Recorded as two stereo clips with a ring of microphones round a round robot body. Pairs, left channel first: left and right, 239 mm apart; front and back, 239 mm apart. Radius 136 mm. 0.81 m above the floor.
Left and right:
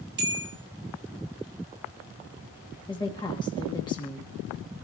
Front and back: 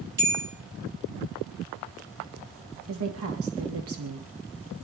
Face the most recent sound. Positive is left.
turn(degrees=160)